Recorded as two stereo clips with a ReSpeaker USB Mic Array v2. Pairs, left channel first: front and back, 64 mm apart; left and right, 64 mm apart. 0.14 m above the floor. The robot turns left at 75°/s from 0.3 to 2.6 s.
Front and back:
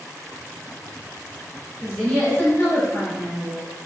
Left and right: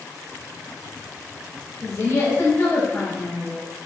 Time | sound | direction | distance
1.8 | a woman speaking | 95° left | 1.9 m